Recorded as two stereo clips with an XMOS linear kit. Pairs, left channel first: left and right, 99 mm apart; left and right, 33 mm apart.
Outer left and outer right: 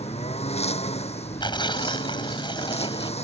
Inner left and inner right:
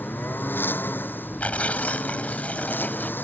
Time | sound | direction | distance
0.0 | a lawn mower | 80° left | ?
1.4 | tearing paper | 45° left (ahead or behind) | ?